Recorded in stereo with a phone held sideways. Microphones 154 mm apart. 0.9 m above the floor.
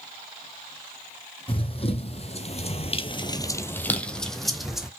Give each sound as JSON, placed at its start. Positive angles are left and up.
{"t": 1.5, "sound": "running footsteps", "side_deg": 35, "distance_m": 2.0}